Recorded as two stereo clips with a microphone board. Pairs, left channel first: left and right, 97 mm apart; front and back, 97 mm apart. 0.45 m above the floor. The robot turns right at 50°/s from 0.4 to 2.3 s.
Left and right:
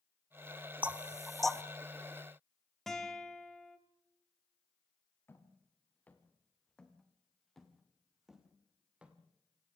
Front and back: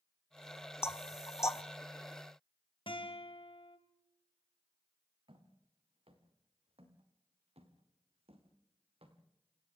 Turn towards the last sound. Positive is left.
turn(degrees=-165)